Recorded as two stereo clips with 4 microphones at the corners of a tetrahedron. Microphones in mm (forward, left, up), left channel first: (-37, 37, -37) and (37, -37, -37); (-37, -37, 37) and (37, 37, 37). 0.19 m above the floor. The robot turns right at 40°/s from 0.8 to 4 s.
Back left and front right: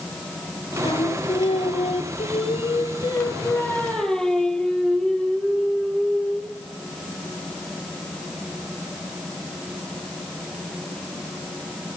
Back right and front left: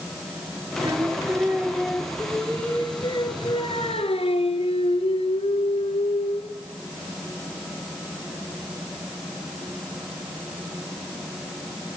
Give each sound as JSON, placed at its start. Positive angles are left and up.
{"t": 0.8, "sound": "singing", "azimuth_deg": 90, "distance_m": 2.0}